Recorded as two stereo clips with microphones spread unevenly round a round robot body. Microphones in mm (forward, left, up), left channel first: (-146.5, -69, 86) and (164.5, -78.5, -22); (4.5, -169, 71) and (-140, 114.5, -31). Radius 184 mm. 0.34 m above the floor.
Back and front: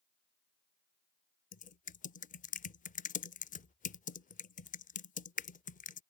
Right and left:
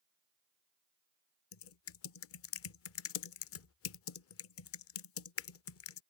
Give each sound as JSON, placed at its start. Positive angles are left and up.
{"t": 1.5, "sound": "typing on a keyboard", "azimuth_deg": -95}